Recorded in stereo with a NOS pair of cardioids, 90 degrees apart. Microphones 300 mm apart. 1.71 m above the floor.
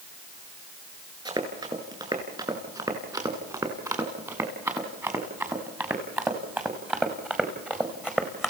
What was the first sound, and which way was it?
Running footsteps, 15° right.